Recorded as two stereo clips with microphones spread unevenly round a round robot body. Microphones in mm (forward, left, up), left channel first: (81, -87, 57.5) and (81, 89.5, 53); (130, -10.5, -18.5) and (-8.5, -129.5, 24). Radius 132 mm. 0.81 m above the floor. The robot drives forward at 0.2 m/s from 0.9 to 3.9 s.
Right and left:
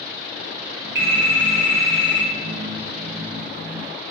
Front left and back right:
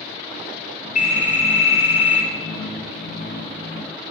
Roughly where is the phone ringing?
Left.